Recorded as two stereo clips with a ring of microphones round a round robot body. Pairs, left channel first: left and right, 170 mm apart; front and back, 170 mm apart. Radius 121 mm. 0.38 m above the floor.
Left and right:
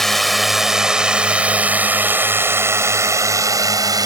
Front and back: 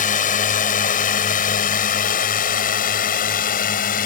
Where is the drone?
Straight ahead; by 4.0 s 30° right.